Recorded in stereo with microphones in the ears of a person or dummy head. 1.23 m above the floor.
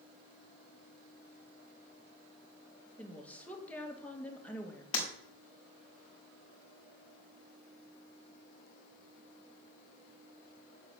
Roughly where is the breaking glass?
Left.